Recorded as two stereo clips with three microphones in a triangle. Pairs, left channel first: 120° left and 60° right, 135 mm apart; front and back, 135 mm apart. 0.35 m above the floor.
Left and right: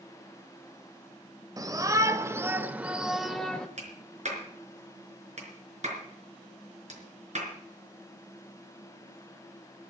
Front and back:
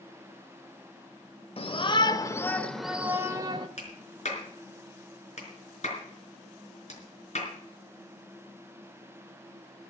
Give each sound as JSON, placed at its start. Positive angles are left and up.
{"t": 1.6, "sound": "a shout", "azimuth_deg": -10, "distance_m": 1.1}
{"t": 3.8, "sound": "a clap", "azimuth_deg": -30, "distance_m": 4.5}